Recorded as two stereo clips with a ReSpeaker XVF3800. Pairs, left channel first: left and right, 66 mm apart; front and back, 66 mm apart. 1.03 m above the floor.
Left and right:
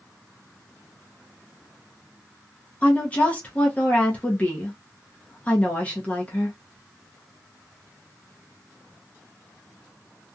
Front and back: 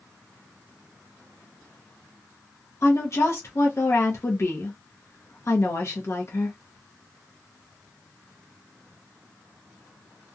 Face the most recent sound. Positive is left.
turn(degrees=25)